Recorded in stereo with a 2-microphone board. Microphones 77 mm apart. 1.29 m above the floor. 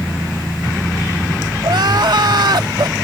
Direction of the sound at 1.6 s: 65° right (ahead or behind).